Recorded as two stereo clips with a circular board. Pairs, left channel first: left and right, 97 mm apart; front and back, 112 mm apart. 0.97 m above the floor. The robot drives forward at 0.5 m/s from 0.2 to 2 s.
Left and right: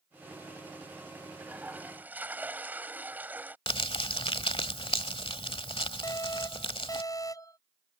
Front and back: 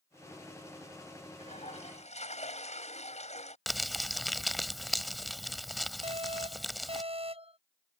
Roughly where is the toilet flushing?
Ahead.